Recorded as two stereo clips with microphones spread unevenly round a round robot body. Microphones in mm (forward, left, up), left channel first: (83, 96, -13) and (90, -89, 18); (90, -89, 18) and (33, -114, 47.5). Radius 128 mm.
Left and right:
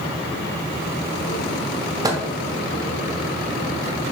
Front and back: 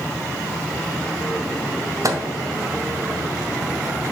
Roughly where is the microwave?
Behind right.